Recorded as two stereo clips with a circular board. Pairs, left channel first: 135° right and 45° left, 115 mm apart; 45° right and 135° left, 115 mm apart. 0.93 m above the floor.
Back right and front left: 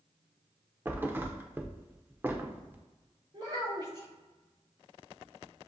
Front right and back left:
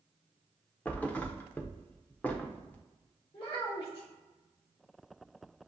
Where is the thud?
10° left, 0.5 m.